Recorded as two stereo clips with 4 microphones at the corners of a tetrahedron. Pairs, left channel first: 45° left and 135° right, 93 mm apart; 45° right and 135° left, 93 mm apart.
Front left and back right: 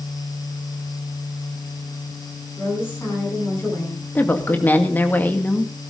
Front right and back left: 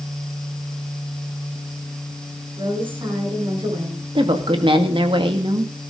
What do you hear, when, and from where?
2.6 s a woman speaking: 110° left, 10 m
4.2 s a woman speaking: 115° left, 2 m